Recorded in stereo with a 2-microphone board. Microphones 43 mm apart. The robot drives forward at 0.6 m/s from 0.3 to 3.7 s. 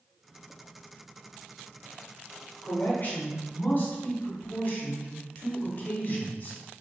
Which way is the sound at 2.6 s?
45° left (ahead or behind).